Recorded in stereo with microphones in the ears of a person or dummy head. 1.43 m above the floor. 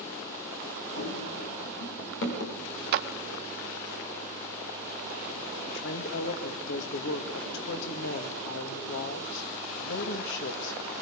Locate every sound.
1.0 s running footsteps: 55° left (ahead or behind), 6.5 m; by 2.6 s 60° left (ahead or behind), 7.5 m
2.9 s a clap: 65° right (ahead or behind), 1.3 m
5.7 s a woman speaking: 80° left, 2 m